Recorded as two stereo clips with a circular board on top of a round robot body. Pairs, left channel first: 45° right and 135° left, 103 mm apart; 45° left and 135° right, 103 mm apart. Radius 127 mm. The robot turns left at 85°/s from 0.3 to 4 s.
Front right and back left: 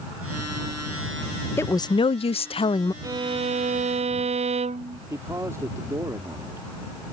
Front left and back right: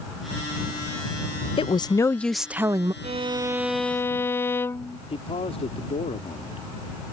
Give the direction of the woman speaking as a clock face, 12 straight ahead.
11 o'clock.